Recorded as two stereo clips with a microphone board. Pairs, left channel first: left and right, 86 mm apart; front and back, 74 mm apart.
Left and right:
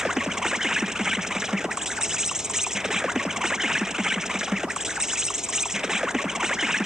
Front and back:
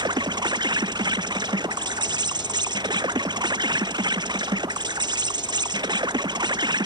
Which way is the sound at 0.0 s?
175° right.